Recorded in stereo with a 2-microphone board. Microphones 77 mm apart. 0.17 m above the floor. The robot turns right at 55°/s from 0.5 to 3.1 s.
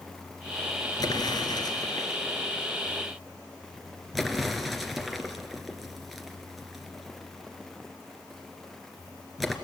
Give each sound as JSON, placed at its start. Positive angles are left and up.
{"t": 1.0, "sound": "an explosion", "side_deg": 55, "distance_m": 1.9}